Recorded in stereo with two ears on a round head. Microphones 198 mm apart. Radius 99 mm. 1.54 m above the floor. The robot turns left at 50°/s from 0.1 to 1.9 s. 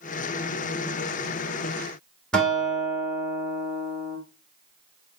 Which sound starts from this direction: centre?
A guitar, at 2.3 s.